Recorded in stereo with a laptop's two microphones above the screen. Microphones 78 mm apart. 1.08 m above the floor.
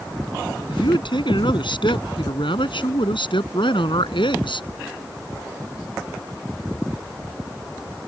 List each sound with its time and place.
0.7 s a man speaking: 75° left (ahead or behind); by 4.7 s 85° left